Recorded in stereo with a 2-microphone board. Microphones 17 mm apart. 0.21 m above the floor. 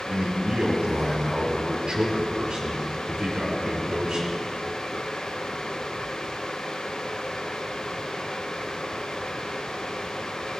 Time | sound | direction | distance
0.1 | a man speaking | 65° right (ahead or behind) | 4.5 m